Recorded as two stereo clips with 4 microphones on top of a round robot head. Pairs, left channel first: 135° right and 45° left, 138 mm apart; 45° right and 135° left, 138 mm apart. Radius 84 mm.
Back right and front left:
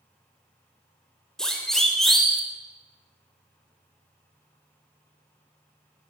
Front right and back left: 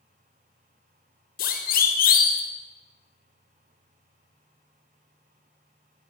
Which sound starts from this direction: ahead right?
A siren, at 1.4 s.